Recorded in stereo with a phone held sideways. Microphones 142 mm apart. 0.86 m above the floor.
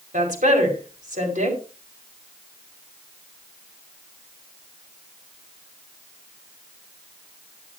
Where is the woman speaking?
65° right (ahead or behind), 5 m.